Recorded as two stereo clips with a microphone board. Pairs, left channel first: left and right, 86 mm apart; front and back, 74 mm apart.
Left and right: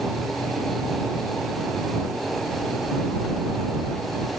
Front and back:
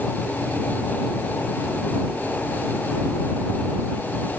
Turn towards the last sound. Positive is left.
No sound to turn to.